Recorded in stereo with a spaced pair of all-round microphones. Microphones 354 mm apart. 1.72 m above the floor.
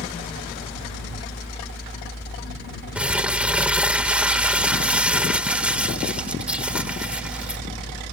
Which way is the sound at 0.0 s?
35° left (ahead or behind).